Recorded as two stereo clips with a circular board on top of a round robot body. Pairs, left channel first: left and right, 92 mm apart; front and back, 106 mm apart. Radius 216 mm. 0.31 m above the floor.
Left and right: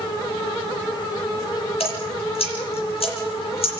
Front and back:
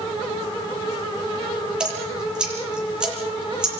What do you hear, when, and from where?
1.8 s dripping: 100° left, 7.5 m